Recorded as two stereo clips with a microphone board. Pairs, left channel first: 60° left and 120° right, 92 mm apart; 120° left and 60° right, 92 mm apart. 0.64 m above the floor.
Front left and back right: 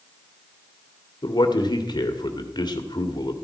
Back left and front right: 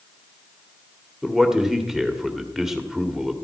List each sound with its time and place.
1.2 s a man speaking: 25° left, 1.8 m